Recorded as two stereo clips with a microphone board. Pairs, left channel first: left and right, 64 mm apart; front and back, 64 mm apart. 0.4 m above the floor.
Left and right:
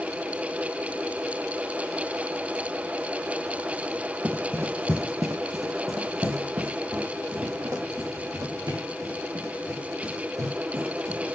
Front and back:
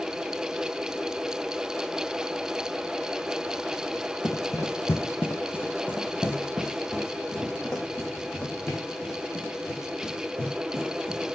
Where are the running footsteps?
30° right, 0.9 m; by 11.3 s 75° right, 5 m.